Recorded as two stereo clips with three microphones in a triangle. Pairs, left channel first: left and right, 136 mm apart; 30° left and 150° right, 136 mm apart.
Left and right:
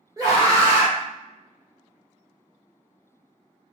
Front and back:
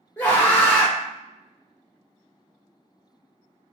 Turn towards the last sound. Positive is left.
turn(degrees=-40)